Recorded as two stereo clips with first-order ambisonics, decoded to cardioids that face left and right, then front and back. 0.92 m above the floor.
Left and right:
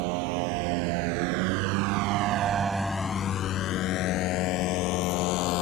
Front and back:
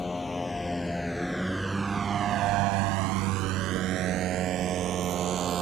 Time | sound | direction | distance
0.0 | a motorcycle | 80° right | ?